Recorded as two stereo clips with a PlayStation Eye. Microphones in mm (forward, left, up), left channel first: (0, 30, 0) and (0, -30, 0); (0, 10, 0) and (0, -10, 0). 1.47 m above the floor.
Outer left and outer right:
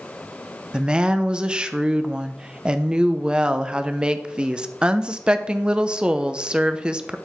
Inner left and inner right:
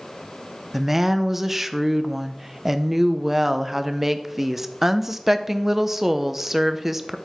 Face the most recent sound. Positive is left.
turn(degrees=-15)  # may be behind; listen again after turning